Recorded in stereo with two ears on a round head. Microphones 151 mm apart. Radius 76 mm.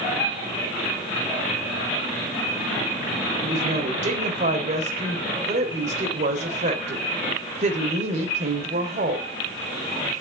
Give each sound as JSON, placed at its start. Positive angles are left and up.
{"t": 3.4, "sound": "a woman speaking", "side_deg": -40, "distance_m": 3.5}